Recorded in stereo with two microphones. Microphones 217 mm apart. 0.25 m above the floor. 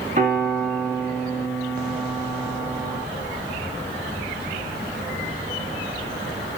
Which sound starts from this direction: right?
A piano, at 0.2 s.